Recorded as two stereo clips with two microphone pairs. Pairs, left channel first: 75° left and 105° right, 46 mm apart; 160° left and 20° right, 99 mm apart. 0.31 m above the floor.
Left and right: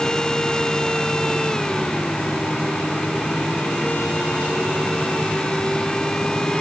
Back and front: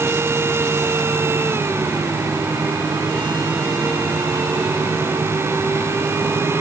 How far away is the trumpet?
I don't hear a trumpet.